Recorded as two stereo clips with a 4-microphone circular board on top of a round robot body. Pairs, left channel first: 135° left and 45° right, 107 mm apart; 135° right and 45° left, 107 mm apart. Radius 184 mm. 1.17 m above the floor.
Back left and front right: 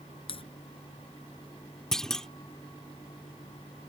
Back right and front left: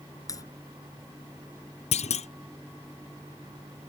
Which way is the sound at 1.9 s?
140° right.